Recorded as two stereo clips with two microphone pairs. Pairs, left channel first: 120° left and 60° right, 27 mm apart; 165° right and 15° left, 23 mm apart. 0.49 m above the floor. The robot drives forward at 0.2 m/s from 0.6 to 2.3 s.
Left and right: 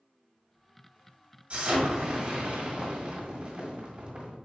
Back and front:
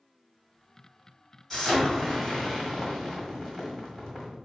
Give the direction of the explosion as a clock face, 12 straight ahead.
4 o'clock.